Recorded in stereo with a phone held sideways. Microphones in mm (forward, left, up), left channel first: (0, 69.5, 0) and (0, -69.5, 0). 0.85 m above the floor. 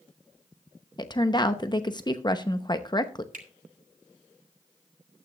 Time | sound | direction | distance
1.0 | a woman speaking | 30° left (ahead or behind) | 0.8 m
3.3 | a finger snap | 75° right (ahead or behind) | 2 m